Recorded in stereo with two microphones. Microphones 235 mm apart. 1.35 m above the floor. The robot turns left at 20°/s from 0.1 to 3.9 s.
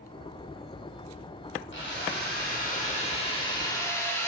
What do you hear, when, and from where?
1.7 s a drill: 55° left, 3.5 m; by 4.3 s 10° left, 3.5 m